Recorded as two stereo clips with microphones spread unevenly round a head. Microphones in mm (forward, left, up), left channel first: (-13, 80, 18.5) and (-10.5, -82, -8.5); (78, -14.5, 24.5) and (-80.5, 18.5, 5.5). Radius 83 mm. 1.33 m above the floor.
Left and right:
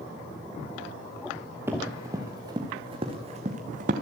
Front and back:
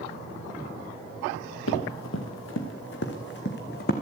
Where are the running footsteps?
10° right, 5.5 m; by 3.9 s 40° right, 4 m.